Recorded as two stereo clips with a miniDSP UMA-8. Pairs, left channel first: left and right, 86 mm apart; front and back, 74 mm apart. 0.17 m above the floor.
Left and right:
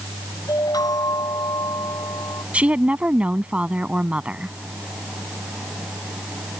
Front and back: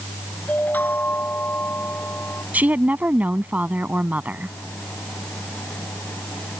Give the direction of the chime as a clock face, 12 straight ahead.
10 o'clock.